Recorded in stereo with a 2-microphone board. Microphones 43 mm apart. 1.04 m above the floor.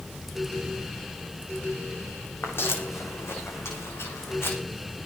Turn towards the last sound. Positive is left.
turn(degrees=75)  # may be behind; listen again after turning